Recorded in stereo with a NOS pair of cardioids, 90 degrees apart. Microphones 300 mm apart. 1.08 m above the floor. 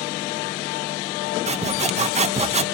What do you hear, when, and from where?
1.5 s sawing: 20° right, 0.9 m